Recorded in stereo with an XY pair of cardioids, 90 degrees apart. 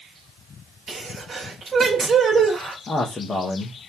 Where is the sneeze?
45° right, 1.9 m.